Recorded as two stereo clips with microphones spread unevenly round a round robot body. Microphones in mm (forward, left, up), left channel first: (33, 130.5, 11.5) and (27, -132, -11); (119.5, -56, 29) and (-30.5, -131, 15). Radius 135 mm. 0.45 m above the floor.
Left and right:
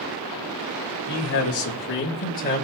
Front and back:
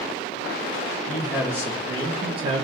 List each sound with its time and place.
1.1 s a man speaking: 120° left, 2 m; by 2.6 s 155° left, 1.7 m